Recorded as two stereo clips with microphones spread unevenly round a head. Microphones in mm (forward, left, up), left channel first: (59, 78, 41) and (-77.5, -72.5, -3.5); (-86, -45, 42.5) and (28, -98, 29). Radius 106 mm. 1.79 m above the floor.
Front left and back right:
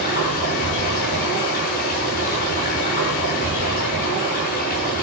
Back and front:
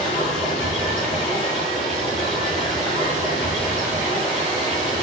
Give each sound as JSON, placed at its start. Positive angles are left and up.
{"t": 0.0, "sound": "running water", "azimuth_deg": 95, "distance_m": 6.0}